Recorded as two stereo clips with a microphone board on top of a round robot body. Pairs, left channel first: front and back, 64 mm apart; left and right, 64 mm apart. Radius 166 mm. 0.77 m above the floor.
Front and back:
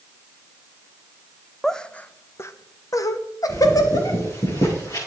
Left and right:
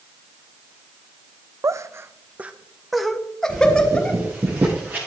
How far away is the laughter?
About 0.9 m.